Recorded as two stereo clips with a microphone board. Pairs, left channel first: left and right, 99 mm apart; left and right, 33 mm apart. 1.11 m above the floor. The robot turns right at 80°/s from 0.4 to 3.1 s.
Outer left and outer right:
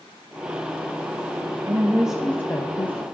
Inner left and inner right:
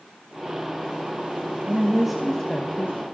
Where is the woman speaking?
40° right, 0.9 m; by 3.0 s 70° left, 0.9 m.